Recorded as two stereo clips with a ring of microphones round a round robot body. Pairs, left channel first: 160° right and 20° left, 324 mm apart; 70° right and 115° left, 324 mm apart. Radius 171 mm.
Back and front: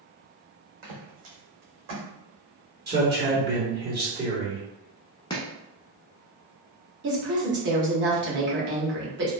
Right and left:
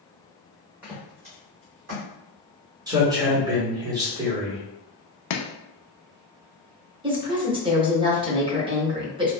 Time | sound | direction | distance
0.8 | footsteps | 25° left | 1.5 m
2.9 | a man speaking | 45° left | 1.3 m
5.3 | chopping | 80° right | 0.5 m
7.0 | a woman speaking | 50° left | 1.0 m